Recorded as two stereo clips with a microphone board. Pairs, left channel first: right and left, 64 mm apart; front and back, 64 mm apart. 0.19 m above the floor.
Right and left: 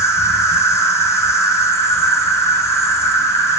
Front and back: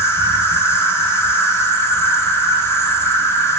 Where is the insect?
50° right, 4 m.